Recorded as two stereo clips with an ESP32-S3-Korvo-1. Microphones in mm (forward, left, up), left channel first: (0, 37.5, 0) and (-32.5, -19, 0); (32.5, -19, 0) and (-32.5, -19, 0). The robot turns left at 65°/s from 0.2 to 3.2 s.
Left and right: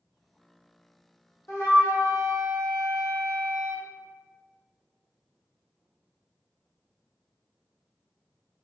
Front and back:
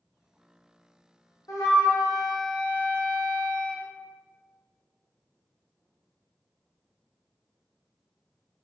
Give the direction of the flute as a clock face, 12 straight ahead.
11 o'clock.